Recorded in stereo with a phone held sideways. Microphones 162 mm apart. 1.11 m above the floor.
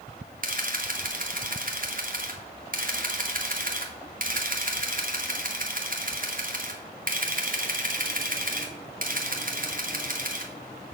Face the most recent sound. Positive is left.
turn(degrees=-55)  # may be behind; listen again after turning